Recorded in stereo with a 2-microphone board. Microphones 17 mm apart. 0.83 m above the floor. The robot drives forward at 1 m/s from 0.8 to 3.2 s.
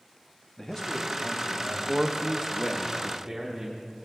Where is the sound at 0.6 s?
30° left (ahead or behind), 1.1 m; by 1.8 s 15° left (ahead or behind), 1.9 m.